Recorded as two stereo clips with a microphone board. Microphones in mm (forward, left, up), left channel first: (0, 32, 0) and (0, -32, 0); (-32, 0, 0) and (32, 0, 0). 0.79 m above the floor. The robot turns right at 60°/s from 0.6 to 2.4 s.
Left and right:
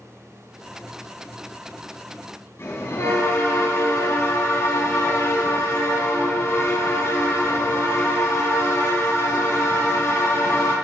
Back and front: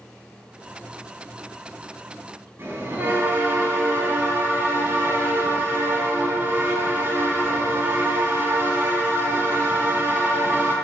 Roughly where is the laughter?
I don't hear laughter.